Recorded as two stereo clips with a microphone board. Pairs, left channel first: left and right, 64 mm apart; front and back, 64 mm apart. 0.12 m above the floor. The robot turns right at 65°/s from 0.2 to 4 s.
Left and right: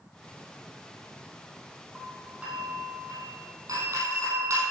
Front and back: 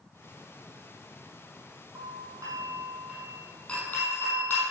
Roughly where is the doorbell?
Behind.